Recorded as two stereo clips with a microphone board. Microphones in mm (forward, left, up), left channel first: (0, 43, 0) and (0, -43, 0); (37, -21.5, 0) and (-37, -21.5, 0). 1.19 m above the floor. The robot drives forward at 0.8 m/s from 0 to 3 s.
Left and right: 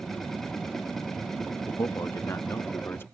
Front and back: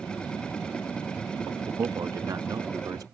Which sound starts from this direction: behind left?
A man speaking, at 1.7 s.